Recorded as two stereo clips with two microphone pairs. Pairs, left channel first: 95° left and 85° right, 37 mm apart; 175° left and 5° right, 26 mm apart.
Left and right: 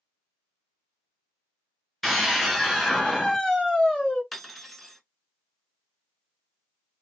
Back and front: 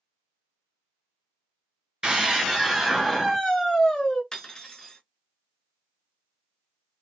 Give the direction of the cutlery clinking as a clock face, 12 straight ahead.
6 o'clock.